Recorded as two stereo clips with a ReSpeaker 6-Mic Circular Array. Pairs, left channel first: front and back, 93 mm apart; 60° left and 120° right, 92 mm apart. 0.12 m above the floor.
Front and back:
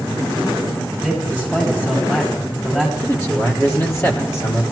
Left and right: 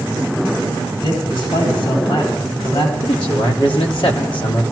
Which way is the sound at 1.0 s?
75° left.